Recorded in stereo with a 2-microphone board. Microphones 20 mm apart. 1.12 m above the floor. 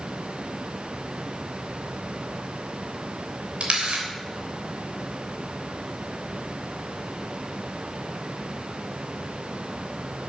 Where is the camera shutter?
65° right (ahead or behind), 3 m.